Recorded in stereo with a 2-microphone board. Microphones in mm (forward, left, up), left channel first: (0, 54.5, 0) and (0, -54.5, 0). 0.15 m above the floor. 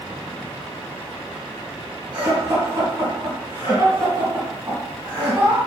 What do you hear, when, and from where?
2.1 s laughter: 20° right (ahead or behind), 1.5 m